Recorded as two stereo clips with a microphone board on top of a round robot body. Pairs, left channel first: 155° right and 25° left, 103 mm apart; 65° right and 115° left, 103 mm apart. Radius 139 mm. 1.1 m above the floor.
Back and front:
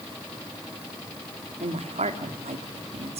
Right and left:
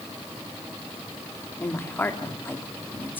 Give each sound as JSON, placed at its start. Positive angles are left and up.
{"t": 1.6, "sound": "a woman speaking", "azimuth_deg": 5, "distance_m": 2.5}